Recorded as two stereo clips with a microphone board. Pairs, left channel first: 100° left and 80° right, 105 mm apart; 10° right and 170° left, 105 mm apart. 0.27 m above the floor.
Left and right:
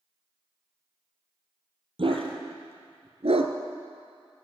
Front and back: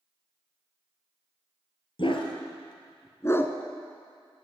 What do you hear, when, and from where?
2.0 s a dog barking: 45° right, 1.9 m; by 3.5 s 85° right, 0.9 m